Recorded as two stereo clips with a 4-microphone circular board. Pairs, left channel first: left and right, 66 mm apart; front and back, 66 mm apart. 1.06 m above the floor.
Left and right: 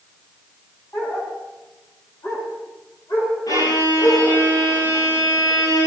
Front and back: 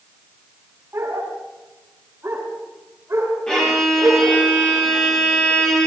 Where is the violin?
75° left, 9.5 m.